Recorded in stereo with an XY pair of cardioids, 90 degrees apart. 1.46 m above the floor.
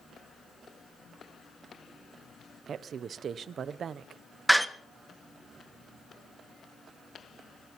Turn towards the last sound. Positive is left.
turn(degrees=-10)